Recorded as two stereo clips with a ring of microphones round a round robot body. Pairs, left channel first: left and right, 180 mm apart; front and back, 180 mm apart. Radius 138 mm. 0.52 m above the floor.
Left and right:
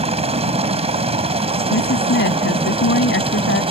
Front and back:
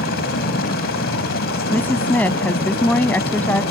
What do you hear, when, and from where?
0.0 s a helicopter: 35° right
1.7 s a woman speaking: 80° left